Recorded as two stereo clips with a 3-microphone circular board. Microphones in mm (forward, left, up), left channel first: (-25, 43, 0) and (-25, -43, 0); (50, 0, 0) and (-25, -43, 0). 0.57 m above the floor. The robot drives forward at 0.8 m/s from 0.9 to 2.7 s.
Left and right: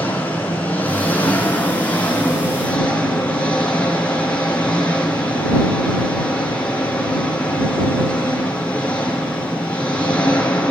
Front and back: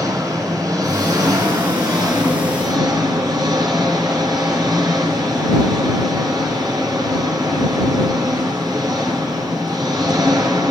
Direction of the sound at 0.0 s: 160° left.